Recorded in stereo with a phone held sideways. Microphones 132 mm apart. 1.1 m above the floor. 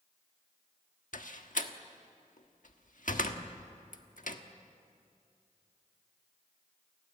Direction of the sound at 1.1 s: 80° left.